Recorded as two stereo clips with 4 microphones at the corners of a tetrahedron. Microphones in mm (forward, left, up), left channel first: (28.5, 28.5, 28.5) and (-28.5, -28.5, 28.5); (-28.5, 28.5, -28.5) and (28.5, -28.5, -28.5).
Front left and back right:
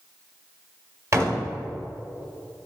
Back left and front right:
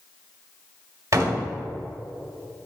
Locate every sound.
1.1 s a door slam: 90° right, 1.3 m